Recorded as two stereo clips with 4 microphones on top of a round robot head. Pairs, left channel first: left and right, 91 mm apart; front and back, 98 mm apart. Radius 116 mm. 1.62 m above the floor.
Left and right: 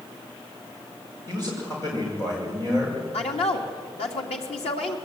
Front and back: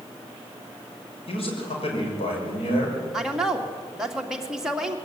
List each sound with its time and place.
1.3 s a man speaking: 20° left, 6.5 m
3.1 s a woman speaking: 95° left, 2.5 m